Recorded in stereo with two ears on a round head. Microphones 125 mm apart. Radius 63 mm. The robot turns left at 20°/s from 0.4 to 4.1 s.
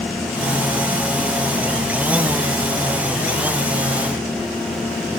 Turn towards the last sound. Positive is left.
No sound to turn to.